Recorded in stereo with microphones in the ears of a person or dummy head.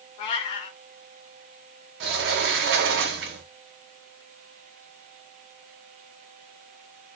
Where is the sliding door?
65° right (ahead or behind), 0.6 m.